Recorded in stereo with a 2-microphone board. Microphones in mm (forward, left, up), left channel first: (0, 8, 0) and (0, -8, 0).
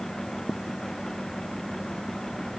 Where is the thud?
I don't hear a thud.